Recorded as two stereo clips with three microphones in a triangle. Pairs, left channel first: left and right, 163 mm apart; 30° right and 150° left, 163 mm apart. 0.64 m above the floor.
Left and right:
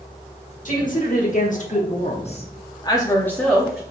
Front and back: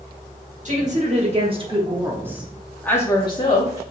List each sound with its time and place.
0.7 s a woman speaking: 115° left, 1.3 m; by 3.8 s 5° right, 0.9 m